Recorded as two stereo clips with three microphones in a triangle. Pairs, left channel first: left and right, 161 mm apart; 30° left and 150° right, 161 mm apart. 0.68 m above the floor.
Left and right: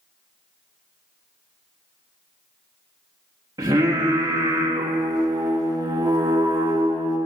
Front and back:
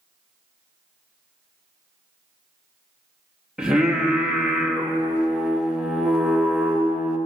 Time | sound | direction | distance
3.6 | singing | 70° right | 1.2 m